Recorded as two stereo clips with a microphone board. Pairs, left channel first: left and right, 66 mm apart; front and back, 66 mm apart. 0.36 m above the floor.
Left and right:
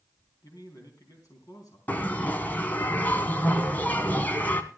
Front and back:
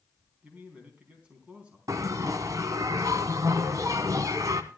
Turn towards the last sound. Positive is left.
turn(degrees=150)